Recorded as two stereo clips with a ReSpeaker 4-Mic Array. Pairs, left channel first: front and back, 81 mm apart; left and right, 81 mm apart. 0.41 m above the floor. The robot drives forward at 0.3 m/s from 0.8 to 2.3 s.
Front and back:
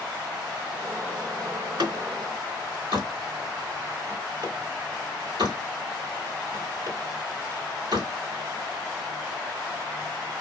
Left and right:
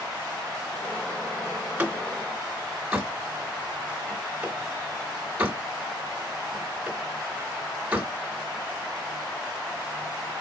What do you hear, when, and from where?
1.6 s a door slam: 160° right, 2 m; by 8.1 s 165° right, 2.5 m